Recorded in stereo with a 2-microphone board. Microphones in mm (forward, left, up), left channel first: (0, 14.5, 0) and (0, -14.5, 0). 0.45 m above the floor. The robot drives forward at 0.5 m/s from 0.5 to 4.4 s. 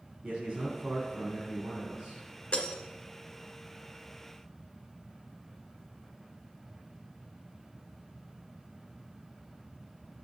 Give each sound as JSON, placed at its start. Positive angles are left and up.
{"t": 0.2, "sound": "a man speaking", "side_deg": -40, "distance_m": 4.5}
{"t": 2.5, "sound": "breaking glass", "side_deg": 45, "distance_m": 1.9}